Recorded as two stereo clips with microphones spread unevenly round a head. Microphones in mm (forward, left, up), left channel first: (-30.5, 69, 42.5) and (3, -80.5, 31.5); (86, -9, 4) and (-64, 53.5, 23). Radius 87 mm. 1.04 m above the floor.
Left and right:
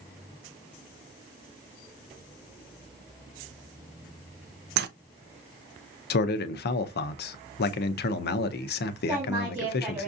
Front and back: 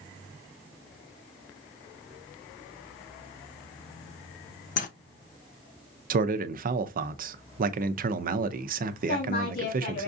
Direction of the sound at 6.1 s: 120° left.